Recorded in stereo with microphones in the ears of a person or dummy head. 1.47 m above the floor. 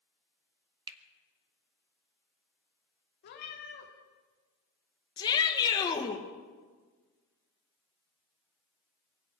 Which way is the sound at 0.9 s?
25° right (ahead or behind).